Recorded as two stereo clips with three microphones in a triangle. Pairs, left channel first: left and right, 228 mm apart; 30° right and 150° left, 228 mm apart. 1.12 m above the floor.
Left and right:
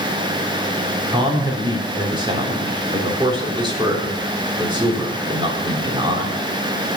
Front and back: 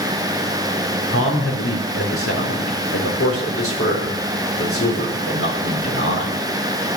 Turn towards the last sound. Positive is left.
turn(degrees=-20)